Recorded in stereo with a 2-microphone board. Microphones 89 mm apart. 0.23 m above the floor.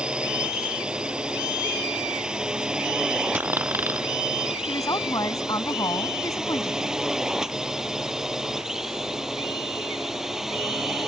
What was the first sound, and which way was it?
A drone, 10° right (ahead or behind).